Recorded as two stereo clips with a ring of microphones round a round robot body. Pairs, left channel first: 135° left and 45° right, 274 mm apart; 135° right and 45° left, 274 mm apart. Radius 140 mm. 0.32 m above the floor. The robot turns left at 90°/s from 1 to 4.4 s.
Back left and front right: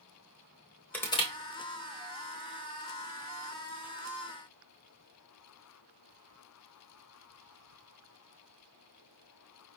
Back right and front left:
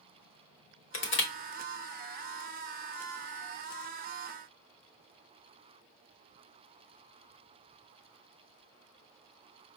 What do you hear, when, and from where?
0.9 s crushing: 145° right, 1.2 m; by 1.3 s 170° right, 1.2 m